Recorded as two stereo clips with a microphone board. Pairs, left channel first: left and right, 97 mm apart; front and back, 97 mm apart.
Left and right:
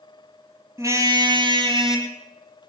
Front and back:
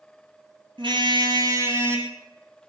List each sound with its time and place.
0.8 s a car horn: 150° right, 2.5 m; by 2.1 s 110° right, 3 m